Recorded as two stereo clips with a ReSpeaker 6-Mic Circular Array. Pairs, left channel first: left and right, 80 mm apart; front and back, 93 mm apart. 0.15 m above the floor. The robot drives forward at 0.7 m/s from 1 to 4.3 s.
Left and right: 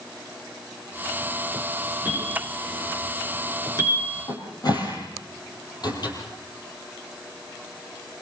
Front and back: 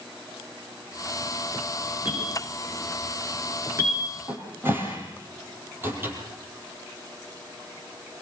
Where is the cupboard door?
115° left, 4.5 m.